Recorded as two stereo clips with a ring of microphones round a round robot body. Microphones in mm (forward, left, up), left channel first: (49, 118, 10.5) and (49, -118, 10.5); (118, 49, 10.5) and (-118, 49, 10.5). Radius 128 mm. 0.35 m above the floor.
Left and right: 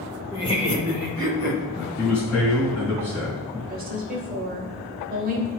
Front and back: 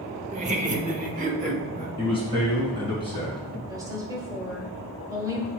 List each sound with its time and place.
0.3 s laughter: 150° left, 0.9 m; by 1.9 s 125° left, 1.6 m
2.0 s a man speaking: 115° left, 2.5 m
3.7 s a woman speaking: 115° right, 1.3 m